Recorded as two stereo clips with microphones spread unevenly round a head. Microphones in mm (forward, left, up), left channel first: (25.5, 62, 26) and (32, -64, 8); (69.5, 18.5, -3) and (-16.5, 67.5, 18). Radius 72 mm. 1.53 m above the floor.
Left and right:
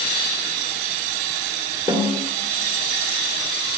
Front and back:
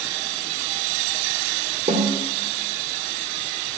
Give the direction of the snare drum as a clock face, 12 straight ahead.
7 o'clock.